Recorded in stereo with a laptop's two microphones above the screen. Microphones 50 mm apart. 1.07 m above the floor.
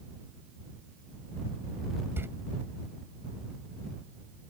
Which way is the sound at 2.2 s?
50° right (ahead or behind).